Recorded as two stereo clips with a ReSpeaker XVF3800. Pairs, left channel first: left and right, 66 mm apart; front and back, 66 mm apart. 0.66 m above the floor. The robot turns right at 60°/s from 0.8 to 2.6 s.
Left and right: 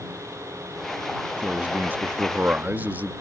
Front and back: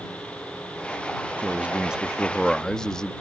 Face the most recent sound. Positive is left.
turn(degrees=-65)